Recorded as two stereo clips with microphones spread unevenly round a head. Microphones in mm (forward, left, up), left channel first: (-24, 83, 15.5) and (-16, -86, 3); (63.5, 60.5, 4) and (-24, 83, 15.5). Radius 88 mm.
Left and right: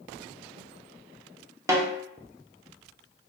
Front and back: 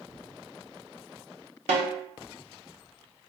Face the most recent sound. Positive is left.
turn(degrees=-160)